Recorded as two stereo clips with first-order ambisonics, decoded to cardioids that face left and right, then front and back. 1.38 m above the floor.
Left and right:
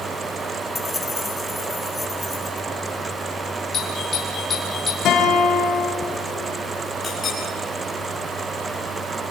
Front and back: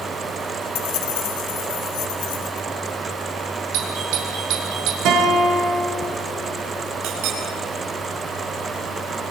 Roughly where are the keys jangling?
Ahead.